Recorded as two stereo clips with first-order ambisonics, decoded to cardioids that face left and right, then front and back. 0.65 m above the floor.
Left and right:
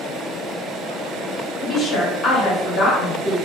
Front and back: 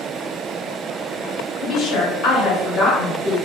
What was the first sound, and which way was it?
A woman speaking, 35° left.